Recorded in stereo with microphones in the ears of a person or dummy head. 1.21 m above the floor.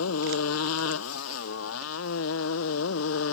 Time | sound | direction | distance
0.0 | a motorcycle | 85° left | ?